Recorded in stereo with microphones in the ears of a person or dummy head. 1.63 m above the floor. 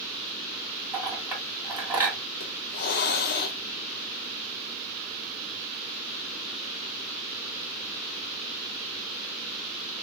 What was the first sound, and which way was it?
A clink, 10° right (ahead or behind).